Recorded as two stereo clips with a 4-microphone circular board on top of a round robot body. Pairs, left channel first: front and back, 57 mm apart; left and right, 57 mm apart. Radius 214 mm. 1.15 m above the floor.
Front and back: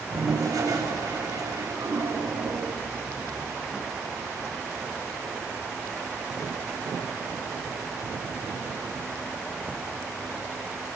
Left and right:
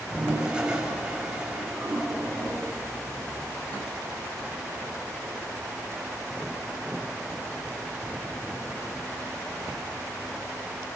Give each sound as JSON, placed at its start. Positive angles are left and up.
{"t": 0.1, "sound": "a toilet flushing", "azimuth_deg": -160, "distance_m": 7.5}